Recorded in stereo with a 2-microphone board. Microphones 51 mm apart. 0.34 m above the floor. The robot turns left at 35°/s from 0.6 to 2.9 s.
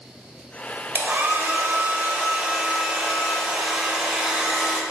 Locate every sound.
0.9 s a hair dryer: 85° right, 0.9 m; by 4.8 s 155° right, 0.9 m